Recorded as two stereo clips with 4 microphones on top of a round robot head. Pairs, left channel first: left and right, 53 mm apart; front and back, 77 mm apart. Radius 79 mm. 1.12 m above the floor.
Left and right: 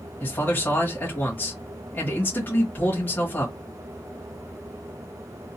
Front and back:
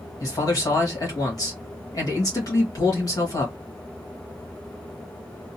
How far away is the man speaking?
About 1.6 m.